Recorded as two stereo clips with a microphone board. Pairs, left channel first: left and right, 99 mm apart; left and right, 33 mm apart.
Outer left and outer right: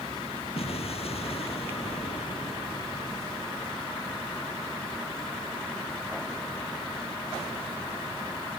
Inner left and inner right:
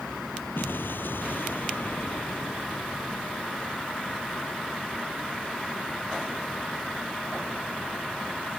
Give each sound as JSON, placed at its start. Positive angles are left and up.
{"t": 0.6, "sound": "an explosion", "side_deg": 75}